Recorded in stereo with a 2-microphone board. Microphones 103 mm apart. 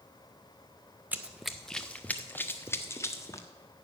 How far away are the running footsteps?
About 0.5 m.